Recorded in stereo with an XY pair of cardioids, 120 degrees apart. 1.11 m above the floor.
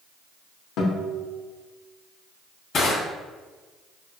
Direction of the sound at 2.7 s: 60° left.